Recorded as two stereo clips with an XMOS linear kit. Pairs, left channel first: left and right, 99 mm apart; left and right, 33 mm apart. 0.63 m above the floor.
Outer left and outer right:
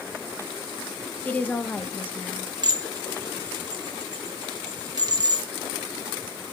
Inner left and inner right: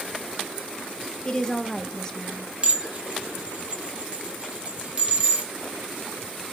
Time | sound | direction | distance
1.2 | a woman speaking | 20° left (ahead or behind) | 0.6 m
2.6 | dishes clattering | 40° right (ahead or behind) | 0.9 m